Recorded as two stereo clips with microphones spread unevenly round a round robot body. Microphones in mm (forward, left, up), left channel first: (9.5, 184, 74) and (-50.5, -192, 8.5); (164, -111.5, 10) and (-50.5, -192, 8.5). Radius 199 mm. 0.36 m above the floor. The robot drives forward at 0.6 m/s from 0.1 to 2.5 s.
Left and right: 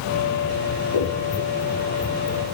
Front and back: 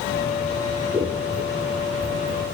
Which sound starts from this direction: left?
Scissors, at 0.7 s.